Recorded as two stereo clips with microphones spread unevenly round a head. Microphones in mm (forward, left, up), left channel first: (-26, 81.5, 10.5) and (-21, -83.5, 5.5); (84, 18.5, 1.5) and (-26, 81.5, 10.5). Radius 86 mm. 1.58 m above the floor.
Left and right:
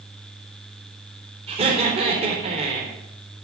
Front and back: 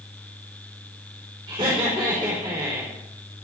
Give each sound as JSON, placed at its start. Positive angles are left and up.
{"t": 1.5, "sound": "laughter", "azimuth_deg": -145, "distance_m": 4.0}